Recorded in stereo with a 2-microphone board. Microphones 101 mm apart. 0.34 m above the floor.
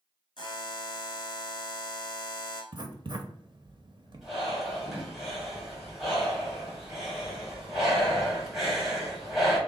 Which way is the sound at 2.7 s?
45° right (ahead or behind).